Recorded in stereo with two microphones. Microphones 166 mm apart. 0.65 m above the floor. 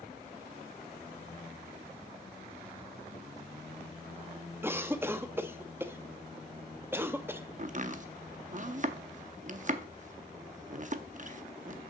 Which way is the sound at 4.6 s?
15° right (ahead or behind).